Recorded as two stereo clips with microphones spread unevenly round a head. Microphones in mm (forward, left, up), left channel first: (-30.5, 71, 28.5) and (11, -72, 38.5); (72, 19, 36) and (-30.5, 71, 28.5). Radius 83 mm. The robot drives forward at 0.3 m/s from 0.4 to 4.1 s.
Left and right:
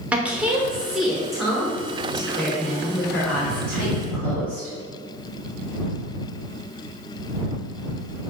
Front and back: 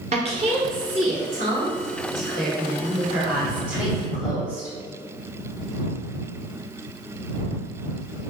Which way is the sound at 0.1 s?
155° right.